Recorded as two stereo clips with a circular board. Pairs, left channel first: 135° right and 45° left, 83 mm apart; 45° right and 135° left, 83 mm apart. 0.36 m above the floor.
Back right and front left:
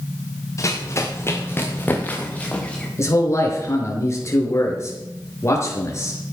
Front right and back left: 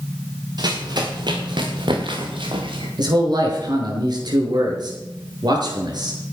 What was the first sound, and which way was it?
Running footsteps, 170° left.